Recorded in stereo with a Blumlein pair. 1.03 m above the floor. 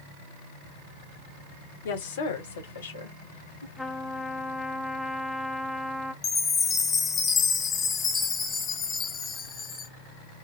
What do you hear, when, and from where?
1.9 s a woman speaking: 55° left, 1.1 m; by 3.7 s 75° left, 2.5 m
3.8 s a trumpet: straight ahead, 0.7 m
6.2 s a chime: 20° left, 1.1 m